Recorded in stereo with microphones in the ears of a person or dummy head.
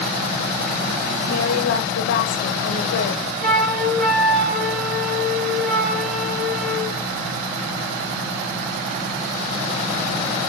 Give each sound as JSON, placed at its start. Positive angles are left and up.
{"t": 1.3, "sound": "a woman speaking", "side_deg": 70, "distance_m": 1.2}
{"t": 3.4, "sound": "a flute", "side_deg": 0, "distance_m": 2.5}